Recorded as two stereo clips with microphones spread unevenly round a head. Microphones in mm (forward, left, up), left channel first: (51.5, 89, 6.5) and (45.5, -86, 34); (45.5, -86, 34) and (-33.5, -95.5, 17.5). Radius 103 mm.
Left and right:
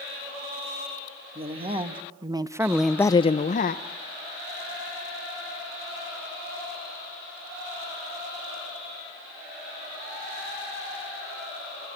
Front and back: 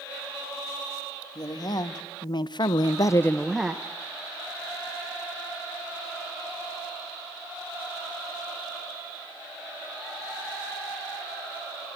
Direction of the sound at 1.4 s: 35° right.